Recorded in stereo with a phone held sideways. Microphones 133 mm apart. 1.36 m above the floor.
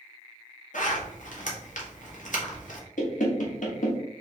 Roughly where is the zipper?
Left.